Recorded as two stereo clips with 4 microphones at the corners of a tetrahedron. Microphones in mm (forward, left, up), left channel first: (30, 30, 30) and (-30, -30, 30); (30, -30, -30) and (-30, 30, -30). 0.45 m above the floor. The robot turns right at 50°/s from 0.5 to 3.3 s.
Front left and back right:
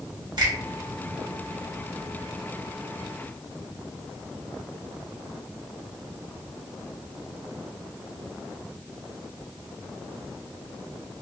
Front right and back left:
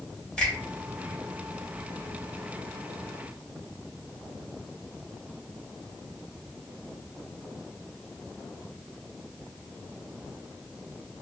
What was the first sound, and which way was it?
A finger snap, 120° right.